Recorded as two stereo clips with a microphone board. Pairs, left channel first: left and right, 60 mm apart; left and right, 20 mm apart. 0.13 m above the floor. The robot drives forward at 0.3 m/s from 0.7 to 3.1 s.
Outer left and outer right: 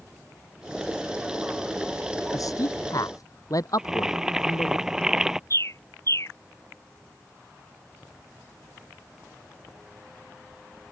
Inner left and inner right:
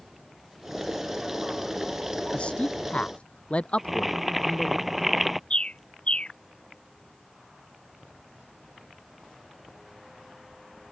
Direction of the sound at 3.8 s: 10° right (ahead or behind).